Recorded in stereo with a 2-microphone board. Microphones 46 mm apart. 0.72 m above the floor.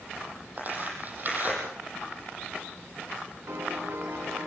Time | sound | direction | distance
0.6 | tearing paper | 40° right (ahead or behind) | 9 m
3.5 | a piano | 65° right (ahead or behind) | 8 m